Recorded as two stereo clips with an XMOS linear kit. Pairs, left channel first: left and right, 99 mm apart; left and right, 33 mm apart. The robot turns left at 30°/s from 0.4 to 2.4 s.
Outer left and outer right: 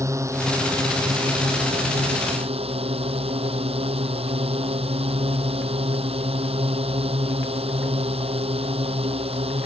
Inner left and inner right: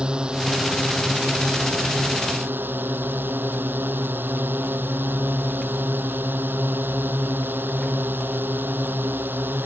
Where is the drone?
30° right; by 9.7 s 90° right.